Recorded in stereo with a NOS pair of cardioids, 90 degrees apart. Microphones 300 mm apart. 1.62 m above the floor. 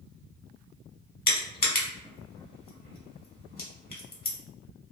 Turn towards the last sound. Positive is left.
turn(degrees=30)